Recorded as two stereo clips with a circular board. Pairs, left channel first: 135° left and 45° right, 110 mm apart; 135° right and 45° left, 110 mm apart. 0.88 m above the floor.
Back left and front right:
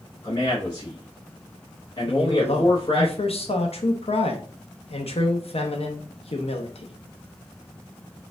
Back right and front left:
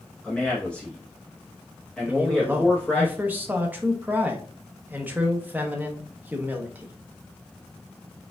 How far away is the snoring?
I don't hear snoring.